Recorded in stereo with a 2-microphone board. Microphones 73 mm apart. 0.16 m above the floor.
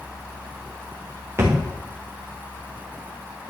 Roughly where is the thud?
Right.